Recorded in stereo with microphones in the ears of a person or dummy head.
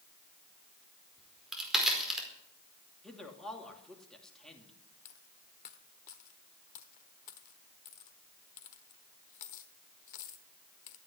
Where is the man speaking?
Centre (ahead or behind), 2.5 m.